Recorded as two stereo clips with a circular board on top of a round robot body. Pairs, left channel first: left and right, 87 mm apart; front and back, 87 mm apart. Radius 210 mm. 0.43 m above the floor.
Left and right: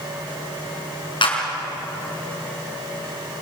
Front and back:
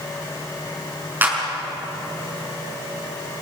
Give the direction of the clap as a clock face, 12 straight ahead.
8 o'clock.